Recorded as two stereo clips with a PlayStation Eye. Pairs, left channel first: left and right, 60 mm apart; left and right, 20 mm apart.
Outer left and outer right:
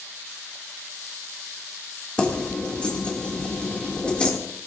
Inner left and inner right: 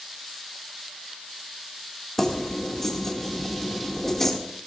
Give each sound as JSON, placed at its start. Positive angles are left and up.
{"t": 2.2, "sound": "keys jangling", "side_deg": 20, "distance_m": 2.5}